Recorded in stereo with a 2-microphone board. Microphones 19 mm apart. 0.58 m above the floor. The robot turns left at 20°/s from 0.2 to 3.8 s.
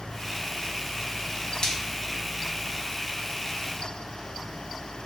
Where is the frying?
45° left (ahead or behind), 0.5 m.